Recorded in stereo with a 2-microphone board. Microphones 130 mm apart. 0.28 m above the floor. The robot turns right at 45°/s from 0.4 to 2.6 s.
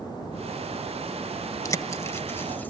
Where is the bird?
25° left (ahead or behind), 0.6 m; by 2.7 s 15° left (ahead or behind), 0.6 m.